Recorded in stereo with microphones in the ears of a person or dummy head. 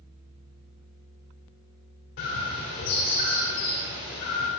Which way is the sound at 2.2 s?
55° left (ahead or behind).